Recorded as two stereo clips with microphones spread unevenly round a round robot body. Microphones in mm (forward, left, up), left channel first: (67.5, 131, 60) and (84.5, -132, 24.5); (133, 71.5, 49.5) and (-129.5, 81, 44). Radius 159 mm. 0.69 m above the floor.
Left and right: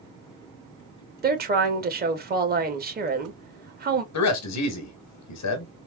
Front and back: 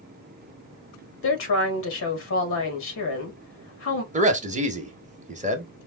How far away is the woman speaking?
About 1.1 m.